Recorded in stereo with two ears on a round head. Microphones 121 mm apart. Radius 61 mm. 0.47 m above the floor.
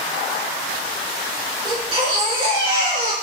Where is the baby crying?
35° right (ahead or behind), 5 m.